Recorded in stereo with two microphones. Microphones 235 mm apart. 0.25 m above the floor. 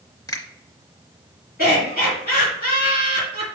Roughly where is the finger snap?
Centre.